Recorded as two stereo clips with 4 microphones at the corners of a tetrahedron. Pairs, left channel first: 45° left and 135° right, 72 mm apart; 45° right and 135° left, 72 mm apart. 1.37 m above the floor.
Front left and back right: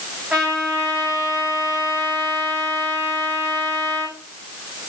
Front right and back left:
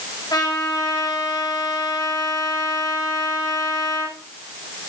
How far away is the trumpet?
About 4 m.